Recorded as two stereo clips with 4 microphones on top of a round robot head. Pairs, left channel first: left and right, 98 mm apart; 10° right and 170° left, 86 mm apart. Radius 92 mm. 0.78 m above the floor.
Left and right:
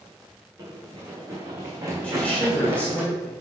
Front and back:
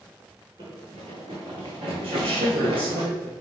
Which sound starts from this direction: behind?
A woman speaking, at 2.0 s.